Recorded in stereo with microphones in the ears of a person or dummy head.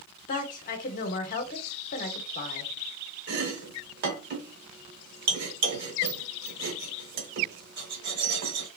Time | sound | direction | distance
0.3 | a woman speaking | 50° left (ahead or behind) | 0.8 m
3.3 | chopping | 60° right (ahead or behind) | 0.8 m